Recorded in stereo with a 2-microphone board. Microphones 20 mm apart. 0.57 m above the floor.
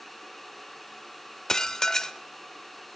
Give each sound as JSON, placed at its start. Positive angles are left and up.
{"t": 1.5, "sound": "dishes clattering", "side_deg": 30, "distance_m": 1.1}